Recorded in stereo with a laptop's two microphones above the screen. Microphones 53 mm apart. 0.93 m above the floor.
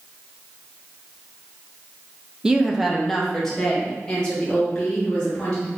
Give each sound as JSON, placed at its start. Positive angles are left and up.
{"t": 2.4, "sound": "a woman speaking", "side_deg": -15, "distance_m": 0.5}